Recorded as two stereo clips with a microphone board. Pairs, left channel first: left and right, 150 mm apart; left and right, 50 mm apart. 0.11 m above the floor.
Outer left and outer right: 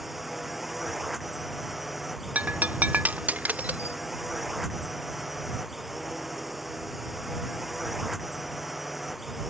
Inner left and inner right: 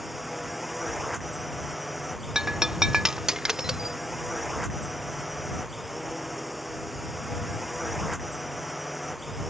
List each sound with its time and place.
0.0 s a drone: centre (ahead or behind)
2.4 s breaking glass: 10° right (ahead or behind)